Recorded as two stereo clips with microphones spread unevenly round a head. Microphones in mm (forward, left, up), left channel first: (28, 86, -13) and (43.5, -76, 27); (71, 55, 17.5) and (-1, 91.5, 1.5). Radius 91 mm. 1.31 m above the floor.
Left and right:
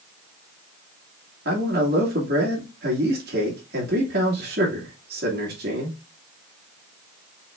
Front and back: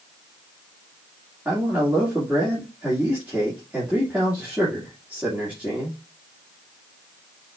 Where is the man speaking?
125° right, 1.8 m.